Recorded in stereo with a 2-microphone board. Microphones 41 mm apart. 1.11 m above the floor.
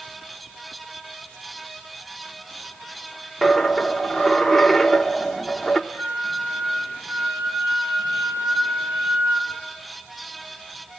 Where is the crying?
No crying in this recording.